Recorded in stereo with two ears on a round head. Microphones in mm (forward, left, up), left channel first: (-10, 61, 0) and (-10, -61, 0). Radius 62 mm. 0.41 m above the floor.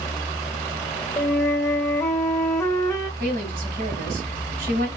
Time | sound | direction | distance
1.2 | a flute | 20° left (ahead or behind) | 0.8 m
3.2 | a woman speaking | 70° right (ahead or behind) | 2.5 m